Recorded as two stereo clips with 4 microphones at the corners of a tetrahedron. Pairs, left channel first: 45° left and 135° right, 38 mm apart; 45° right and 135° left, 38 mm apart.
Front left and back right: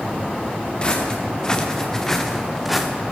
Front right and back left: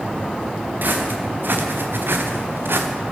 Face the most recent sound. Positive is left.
turn(degrees=135)